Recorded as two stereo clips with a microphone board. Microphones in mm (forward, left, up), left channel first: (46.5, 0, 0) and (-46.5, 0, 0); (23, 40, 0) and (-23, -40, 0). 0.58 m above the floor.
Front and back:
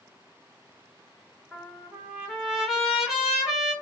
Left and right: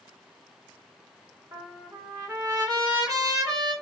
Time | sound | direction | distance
1.5 | a trumpet | 95° right | 1.6 m